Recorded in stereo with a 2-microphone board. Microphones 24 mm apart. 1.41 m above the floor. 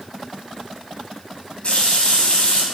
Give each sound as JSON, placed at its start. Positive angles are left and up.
{"t": 1.6, "sound": "a running tap", "side_deg": 55, "distance_m": 2.0}